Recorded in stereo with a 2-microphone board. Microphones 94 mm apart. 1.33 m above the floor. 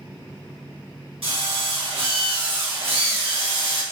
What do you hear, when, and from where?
1.2 s a drill: 75° right (ahead or behind), 1.5 m